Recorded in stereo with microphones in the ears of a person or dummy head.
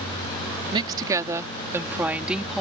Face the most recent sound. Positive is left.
turn(degrees=0)  # may be behind; listen again after turning